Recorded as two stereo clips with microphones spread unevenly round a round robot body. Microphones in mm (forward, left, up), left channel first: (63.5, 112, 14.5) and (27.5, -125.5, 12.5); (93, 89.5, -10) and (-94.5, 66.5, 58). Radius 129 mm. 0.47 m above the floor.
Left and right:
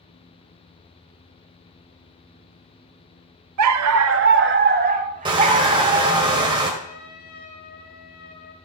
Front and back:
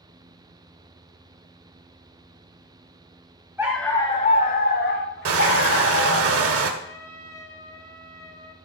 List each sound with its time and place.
3.6 s a dog barking: 90° right, 0.6 m; by 6.2 s 30° right, 1.8 m
5.2 s crushing: 170° right, 1.8 m
6.8 s a trumpet: 85° left, 3.5 m